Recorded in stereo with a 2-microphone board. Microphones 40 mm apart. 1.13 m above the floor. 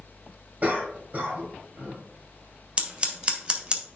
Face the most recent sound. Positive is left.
turn(degrees=-25)  # may be behind; listen again after turning